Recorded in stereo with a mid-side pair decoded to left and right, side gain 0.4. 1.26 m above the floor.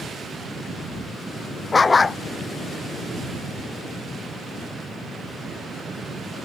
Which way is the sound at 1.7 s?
35° left.